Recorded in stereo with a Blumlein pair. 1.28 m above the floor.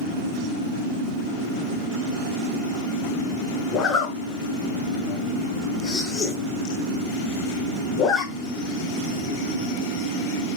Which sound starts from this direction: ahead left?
A zipper, at 3.7 s.